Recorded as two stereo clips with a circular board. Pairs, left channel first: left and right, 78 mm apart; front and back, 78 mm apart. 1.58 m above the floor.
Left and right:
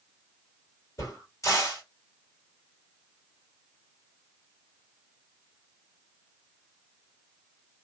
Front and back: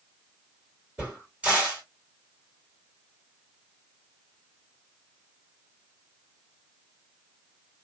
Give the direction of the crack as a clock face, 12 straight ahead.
8 o'clock.